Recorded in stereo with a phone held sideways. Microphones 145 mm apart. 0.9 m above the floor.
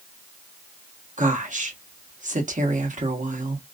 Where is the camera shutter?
I don't hear a camera shutter.